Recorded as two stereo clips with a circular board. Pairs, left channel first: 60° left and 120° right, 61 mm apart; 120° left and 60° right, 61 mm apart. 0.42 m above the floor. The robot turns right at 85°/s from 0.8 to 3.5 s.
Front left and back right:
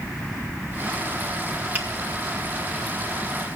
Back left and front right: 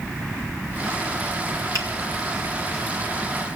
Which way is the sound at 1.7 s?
60° right.